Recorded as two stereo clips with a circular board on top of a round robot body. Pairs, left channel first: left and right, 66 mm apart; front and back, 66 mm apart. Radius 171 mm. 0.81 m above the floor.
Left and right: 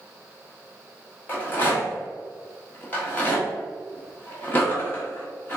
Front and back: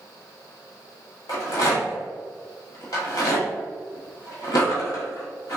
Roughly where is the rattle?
Ahead left.